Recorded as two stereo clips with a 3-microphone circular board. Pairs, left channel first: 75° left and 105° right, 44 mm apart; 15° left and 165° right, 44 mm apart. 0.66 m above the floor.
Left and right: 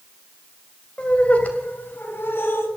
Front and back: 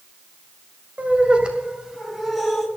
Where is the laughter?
140° left, 3 m; by 2.7 s 105° left, 4 m.